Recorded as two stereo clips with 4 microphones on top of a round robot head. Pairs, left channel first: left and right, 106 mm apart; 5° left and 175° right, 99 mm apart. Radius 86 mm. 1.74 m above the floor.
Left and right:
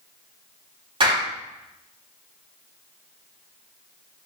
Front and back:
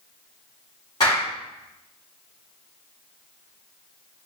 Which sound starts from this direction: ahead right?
A clap, at 1.0 s.